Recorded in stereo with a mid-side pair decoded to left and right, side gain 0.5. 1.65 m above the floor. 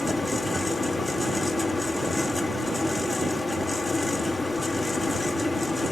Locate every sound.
0.0 s a fan: 15° left, 1.7 m